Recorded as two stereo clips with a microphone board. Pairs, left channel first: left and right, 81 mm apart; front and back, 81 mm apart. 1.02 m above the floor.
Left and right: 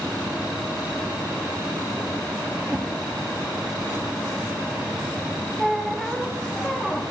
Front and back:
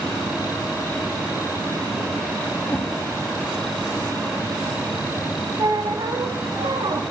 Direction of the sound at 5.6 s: 175° left.